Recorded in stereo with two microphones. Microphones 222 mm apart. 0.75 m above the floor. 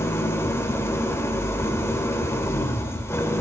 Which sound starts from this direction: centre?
An engine running, at 0.0 s.